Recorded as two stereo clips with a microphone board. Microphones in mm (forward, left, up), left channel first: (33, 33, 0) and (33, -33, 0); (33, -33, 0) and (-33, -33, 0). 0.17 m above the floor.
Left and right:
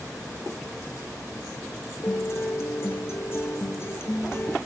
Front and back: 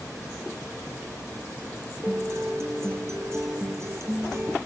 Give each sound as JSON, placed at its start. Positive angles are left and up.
{"t": 2.0, "sound": "a guitar", "azimuth_deg": 135, "distance_m": 2.0}